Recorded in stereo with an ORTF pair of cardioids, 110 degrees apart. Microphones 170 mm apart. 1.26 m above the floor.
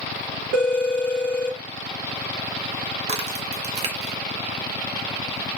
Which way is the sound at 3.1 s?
40° right.